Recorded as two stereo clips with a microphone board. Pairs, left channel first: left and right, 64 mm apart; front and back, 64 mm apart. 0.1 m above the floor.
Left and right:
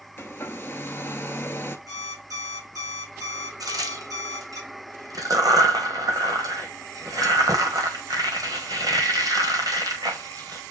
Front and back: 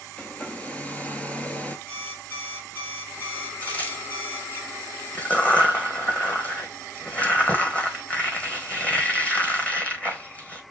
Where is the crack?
70° right, 1.0 m.